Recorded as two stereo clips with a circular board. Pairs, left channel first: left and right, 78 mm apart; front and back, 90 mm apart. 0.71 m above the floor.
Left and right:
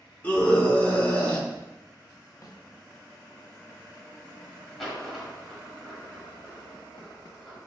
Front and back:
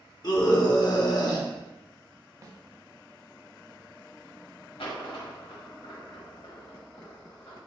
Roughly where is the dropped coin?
Ahead.